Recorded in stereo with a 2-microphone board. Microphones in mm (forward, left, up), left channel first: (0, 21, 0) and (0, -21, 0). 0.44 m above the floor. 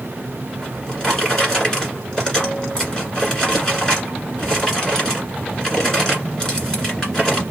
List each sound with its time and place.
0.6 s a drawer: 15° left (ahead or behind), 1.6 m